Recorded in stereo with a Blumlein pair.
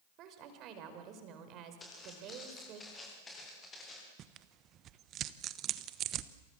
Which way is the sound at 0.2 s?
35° right.